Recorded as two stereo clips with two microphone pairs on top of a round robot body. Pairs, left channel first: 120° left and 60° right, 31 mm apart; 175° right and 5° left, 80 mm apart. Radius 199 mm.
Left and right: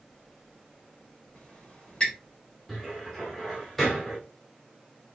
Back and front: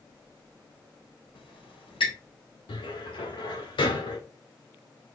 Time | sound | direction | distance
1.4 | a squeak | 175° left | 3.5 m
2.7 | a cupboard door | 160° right | 1.6 m